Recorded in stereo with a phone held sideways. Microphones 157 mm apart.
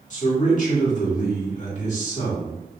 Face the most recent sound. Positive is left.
turn(degrees=55)  # may be behind; listen again after turning